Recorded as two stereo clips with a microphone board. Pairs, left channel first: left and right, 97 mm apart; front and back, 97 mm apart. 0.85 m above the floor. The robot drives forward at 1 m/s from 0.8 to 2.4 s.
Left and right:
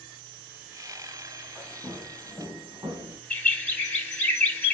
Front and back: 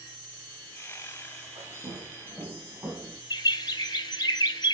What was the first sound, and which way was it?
Footsteps, 165° right.